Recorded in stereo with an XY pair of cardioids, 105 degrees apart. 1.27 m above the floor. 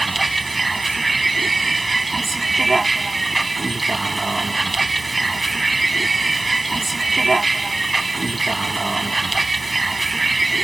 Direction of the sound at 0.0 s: 20° right.